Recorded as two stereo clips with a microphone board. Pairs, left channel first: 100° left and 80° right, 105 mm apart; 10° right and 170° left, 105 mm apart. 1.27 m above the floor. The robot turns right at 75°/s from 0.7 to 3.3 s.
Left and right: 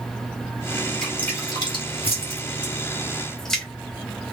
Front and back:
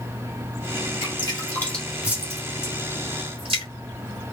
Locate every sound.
1.0 s dripping: 15° left, 1.8 m; by 3.6 s 175° right, 1.8 m